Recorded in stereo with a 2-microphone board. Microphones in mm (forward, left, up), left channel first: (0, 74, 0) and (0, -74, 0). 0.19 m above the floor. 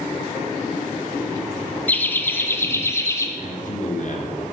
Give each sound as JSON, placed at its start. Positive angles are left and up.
{"t": 1.9, "sound": "laughter", "side_deg": 10, "distance_m": 1.5}
{"t": 3.4, "sound": "a man speaking", "side_deg": 60, "distance_m": 3.0}